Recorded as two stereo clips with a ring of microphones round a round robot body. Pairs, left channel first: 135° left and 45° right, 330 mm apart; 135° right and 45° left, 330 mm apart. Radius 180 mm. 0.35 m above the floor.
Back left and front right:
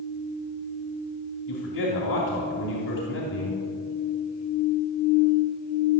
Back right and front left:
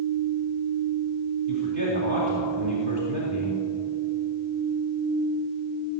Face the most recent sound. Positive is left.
turn(degrees=80)